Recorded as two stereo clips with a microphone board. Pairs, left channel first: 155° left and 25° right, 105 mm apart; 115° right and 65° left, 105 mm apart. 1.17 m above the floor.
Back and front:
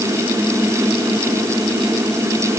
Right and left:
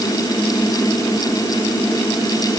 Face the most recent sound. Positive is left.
No sound to turn to.